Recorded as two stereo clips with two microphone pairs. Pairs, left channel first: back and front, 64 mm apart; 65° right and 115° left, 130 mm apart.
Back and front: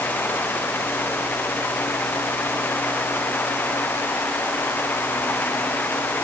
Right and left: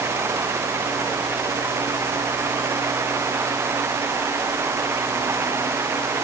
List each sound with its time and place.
Only background noise.